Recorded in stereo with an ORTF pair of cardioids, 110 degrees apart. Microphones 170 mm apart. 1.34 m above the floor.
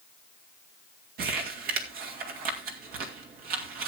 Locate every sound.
1.2 s crumpling: 60° right, 2.5 m